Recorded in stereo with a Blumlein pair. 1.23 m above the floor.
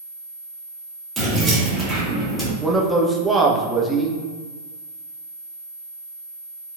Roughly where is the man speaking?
Ahead.